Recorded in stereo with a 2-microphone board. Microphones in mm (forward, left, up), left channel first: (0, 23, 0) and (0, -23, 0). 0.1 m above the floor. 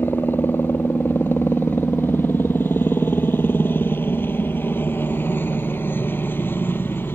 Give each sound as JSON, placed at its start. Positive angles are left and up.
{"t": 0.0, "sound": "a helicopter", "side_deg": 55}